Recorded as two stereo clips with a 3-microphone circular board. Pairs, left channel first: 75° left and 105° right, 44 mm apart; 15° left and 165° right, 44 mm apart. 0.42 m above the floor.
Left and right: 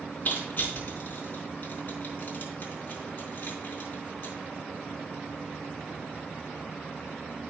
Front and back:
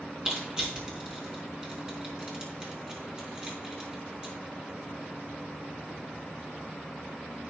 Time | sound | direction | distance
0.2 | crushing | 125° left | 4 m